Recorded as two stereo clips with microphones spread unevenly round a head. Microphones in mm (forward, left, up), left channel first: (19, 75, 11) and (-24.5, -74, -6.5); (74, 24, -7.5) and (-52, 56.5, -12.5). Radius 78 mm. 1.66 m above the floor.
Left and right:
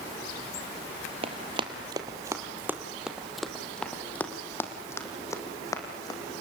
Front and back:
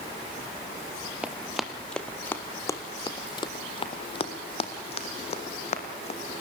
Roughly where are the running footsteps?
Behind right.